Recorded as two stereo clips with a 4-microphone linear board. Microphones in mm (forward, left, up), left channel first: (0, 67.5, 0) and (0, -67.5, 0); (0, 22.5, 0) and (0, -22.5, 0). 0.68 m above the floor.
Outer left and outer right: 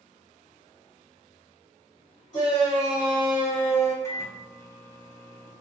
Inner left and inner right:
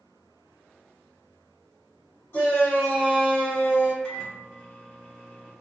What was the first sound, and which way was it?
A shout, 60° left (ahead or behind).